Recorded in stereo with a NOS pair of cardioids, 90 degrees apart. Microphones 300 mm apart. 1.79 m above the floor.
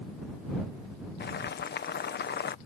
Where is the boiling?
35° left.